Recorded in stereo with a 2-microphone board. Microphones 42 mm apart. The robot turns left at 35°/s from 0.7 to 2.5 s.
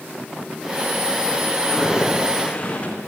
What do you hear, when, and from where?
1.6 s footsteps: 10° right (ahead or behind), 6.5 m; by 3.0 s 30° left (ahead or behind), 6.5 m